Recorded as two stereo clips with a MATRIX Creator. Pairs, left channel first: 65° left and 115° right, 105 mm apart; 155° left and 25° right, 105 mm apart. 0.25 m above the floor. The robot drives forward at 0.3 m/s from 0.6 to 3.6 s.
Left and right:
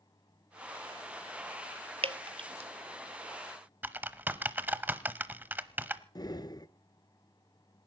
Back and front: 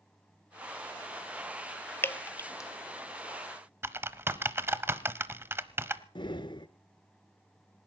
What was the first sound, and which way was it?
Dripping, 135° right.